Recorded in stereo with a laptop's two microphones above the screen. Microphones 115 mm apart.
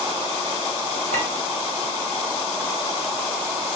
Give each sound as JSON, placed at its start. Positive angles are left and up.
{"t": 1.1, "sound": "a clink", "side_deg": -85, "distance_m": 2.5}